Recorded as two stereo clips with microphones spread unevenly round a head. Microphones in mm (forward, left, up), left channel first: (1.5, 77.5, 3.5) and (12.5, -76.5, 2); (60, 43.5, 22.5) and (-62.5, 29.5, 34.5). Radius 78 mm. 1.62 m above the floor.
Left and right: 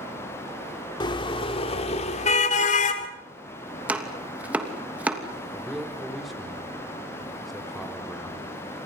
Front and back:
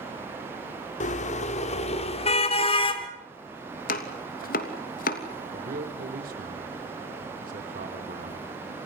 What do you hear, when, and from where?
1.0 s a car horn: 35° left, 2.5 m; by 3.1 s 55° left, 3 m
3.9 s chopping: 5° right, 3 m
5.5 s a man speaking: 175° right, 4 m